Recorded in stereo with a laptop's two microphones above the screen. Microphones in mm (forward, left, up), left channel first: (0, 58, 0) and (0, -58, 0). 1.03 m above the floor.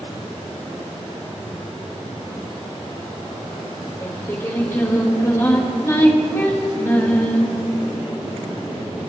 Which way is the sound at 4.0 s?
25° left (ahead or behind).